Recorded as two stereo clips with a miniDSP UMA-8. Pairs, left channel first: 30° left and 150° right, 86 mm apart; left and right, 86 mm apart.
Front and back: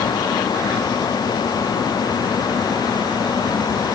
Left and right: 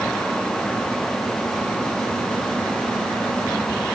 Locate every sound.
Only background noise.